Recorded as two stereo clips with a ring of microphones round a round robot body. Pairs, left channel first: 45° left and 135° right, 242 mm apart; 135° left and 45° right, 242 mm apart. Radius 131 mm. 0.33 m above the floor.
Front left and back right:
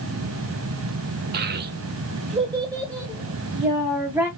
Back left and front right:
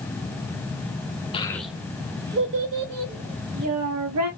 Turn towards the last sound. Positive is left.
turn(degrees=-45)